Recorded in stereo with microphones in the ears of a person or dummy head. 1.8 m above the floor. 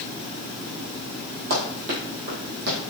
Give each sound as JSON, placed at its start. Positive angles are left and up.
{"t": 1.5, "sound": "running footsteps", "side_deg": -45, "distance_m": 2.5}